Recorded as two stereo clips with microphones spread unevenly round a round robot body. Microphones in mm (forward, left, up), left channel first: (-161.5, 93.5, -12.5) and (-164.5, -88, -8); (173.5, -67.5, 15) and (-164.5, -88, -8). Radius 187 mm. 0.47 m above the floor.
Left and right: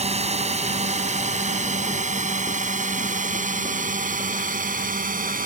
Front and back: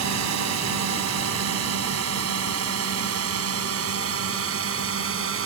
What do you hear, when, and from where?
0.0 s a drone: 140° right; by 5.5 s 130° right